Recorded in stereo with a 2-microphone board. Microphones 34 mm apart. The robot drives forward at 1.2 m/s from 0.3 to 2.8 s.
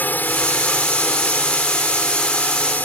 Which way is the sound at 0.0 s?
60° left (ahead or behind).